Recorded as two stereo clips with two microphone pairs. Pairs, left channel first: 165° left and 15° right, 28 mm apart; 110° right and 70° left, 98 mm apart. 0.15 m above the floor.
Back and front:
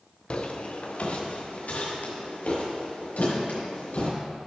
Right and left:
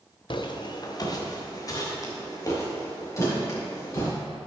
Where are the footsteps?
140° right, 1.0 m; by 4.1 s 170° right, 5 m.